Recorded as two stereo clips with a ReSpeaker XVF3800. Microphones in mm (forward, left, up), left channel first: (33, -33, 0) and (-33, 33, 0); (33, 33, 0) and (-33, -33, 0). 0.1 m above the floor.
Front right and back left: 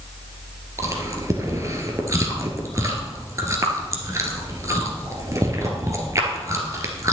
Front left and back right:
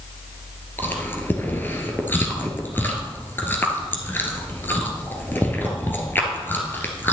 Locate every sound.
0.8 s chewing: 100° left, 1.6 m